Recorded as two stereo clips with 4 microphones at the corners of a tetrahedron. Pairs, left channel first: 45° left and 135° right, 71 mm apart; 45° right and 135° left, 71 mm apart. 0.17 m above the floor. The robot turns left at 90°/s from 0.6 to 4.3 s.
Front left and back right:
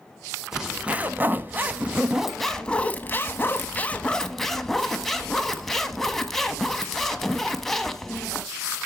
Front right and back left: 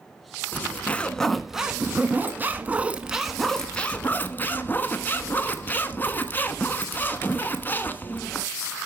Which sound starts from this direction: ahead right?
A zipper, at 0.5 s.